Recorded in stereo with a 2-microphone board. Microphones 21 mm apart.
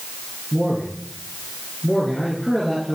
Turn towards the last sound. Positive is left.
turn(degrees=10)  # may be behind; listen again after turning